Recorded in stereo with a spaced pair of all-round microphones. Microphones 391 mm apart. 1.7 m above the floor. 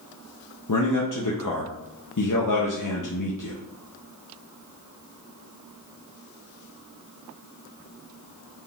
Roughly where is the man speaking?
Left.